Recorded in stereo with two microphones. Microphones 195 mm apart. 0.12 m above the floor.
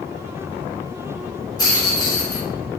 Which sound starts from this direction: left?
A rattle, at 1.6 s.